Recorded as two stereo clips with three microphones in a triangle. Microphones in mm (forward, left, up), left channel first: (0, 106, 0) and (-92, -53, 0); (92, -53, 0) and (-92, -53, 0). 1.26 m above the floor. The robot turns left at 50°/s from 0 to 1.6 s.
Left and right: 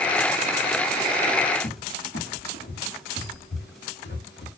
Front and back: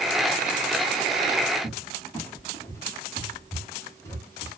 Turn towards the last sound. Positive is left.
turn(degrees=75)